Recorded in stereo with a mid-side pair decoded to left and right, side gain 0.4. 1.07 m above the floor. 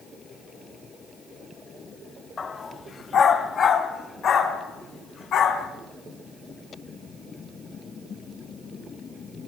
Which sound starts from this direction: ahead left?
A dog barking, at 2.4 s.